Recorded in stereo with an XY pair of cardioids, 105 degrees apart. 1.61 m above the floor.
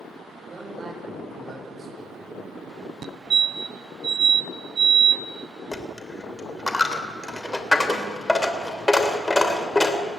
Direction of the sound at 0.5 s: 35° right.